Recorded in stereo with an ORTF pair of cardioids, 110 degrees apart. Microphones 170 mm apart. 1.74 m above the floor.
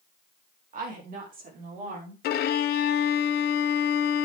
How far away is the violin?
About 1.2 m.